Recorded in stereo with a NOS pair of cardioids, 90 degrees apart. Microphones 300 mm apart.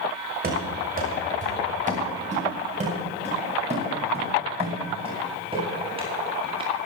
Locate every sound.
0.4 s running footsteps: 30° right, 6.5 m; by 6.7 s 15° right, 11 m